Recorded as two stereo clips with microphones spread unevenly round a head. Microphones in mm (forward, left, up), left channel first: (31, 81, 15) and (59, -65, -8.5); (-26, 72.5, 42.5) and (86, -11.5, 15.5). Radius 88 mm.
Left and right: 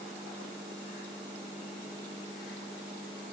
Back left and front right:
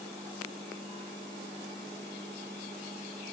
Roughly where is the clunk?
I don't hear a clunk.